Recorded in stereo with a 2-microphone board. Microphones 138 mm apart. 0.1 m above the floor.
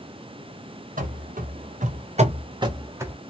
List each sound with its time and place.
1.0 s running footsteps: 80° right, 1.3 m; by 3.2 s 15° right (ahead or behind), 0.9 m